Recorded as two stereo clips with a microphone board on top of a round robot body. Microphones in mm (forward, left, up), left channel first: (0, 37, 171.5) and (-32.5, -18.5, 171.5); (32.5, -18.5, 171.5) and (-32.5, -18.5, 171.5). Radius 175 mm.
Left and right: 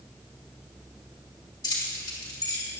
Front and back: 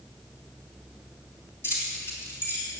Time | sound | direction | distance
1.6 | keys jangling | 50° left | 3.5 m